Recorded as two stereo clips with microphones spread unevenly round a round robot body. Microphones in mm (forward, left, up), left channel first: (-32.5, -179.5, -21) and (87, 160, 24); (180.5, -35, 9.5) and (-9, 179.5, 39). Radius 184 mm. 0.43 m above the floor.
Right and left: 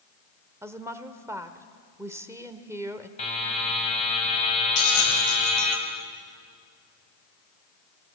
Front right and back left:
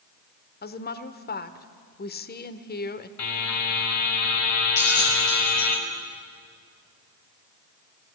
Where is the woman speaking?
15° right, 1.1 m.